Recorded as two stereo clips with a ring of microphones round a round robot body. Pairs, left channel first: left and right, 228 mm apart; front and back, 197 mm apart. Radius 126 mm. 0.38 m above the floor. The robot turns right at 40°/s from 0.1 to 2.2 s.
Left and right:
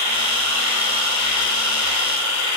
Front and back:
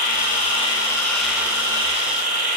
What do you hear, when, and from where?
0.0 s an insect: 45° left, 1.0 m; by 2.6 s 130° left, 1.0 m